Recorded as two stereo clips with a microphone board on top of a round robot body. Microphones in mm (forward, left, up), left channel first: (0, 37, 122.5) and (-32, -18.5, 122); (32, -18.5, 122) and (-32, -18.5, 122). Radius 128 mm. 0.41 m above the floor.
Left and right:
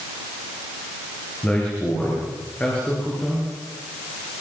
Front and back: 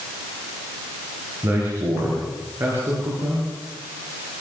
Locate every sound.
1.4 s a man speaking: 130° left, 8 m